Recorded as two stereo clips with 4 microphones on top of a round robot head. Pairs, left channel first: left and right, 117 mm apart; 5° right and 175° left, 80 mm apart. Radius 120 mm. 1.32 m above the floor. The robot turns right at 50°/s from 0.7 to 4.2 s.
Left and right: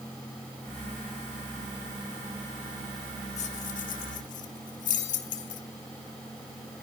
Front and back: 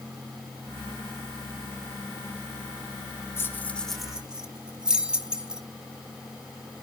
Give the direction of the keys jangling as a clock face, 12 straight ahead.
10 o'clock.